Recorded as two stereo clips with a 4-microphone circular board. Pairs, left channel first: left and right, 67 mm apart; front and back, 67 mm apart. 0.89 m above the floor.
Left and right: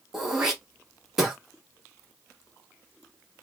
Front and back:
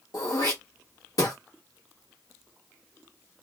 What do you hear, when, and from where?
0.1 s throat clearing: 5° right, 1.5 m